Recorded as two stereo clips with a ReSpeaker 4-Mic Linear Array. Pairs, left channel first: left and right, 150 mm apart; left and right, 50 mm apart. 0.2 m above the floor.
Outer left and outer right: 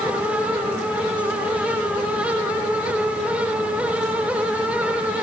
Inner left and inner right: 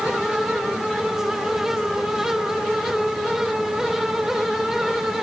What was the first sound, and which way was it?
Only background noise.